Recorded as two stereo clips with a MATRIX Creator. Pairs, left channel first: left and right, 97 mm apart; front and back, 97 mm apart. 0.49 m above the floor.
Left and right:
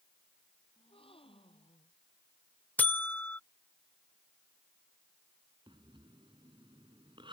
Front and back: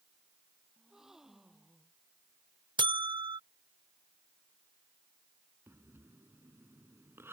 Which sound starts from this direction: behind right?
Breathing, at 5.7 s.